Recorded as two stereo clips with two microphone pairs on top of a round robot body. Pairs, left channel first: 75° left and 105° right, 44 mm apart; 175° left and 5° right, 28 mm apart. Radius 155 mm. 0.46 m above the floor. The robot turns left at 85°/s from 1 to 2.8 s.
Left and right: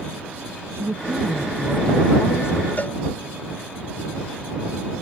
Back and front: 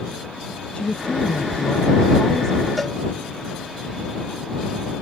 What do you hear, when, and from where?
0.8 s a woman speaking: 130° right; by 2.7 s 85° left
2.8 s a cowbell: 100° left